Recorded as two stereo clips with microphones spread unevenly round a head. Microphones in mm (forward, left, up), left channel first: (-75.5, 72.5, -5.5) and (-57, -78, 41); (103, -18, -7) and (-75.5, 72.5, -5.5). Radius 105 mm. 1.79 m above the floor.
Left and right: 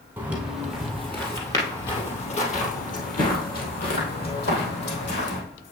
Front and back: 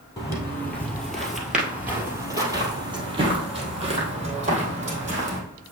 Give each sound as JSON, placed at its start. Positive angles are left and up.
{"t": 0.2, "sound": "footsteps", "azimuth_deg": -85, "distance_m": 1.9}